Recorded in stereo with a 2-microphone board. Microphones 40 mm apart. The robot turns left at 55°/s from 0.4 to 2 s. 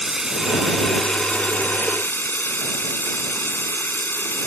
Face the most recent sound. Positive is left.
turn(degrees=110)